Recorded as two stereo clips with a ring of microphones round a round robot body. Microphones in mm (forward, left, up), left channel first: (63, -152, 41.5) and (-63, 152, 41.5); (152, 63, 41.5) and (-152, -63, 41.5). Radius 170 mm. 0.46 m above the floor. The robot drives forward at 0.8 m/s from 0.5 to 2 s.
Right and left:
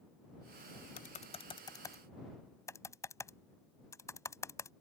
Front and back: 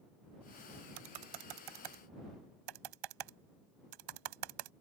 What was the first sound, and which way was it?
Typing on a keyboard, 130° right.